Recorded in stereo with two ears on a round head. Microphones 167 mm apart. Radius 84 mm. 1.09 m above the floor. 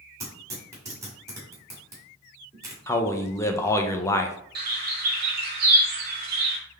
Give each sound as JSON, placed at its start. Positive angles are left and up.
{"t": 0.2, "sound": "tearing paper", "side_deg": -15, "distance_m": 1.8}
{"t": 2.9, "sound": "a man speaking", "side_deg": 15, "distance_m": 0.6}
{"t": 4.5, "sound": "a bird", "side_deg": -55, "distance_m": 1.2}